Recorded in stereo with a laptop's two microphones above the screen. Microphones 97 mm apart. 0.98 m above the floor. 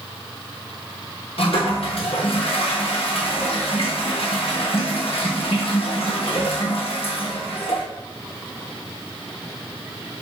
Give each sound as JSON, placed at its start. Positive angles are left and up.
{"t": 1.4, "sound": "a toilet flushing", "side_deg": 70, "distance_m": 0.9}